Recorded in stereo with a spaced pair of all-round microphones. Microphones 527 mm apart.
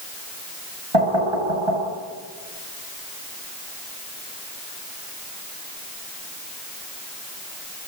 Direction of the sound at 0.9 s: 75° right (ahead or behind).